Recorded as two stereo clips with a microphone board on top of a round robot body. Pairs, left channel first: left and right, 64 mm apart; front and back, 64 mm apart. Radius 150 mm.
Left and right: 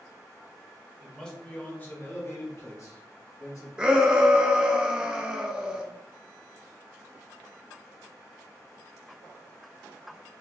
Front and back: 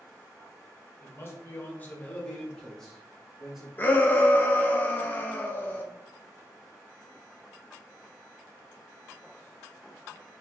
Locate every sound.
1.0 s a man speaking: 10° left, 1.5 m; by 3.7 s 95° left, 2 m
3.8 s a shout: 25° right, 0.7 m